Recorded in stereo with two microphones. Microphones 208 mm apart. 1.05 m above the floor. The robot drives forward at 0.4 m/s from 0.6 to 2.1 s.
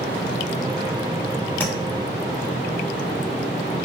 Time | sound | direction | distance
1.6 | tapping | 10° left (ahead or behind) | 1.0 m